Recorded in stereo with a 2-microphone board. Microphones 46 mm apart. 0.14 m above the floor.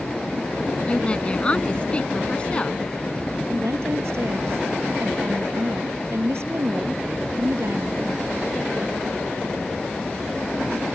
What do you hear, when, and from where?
0.9 s a woman speaking: 25° left (ahead or behind)
3.5 s a woman speaking: 65° right (ahead or behind)